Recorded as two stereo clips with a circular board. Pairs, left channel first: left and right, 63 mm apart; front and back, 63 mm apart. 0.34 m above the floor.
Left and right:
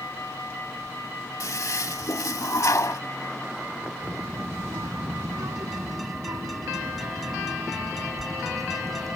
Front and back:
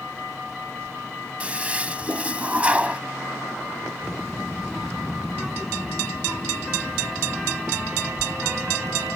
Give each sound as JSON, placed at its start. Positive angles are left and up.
{"t": 1.4, "sound": "a toilet flushing", "azimuth_deg": 115}
{"t": 4.0, "sound": "a child speaking", "azimuth_deg": -95}